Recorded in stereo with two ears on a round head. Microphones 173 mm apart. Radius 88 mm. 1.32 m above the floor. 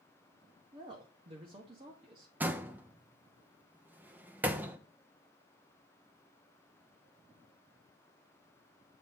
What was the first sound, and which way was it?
A woman speaking, 25° right (ahead or behind).